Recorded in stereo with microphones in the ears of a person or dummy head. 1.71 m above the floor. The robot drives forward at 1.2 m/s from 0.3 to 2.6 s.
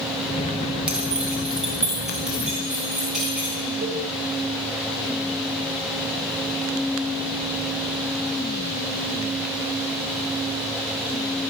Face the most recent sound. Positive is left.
turn(degrees=-55)  # may be behind; listen again after turning